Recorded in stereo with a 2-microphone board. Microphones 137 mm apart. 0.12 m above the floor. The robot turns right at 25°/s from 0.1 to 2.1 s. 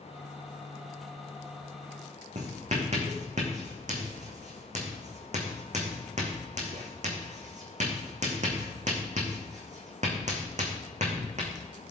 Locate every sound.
2.4 s writing: 60° right (ahead or behind), 2.5 m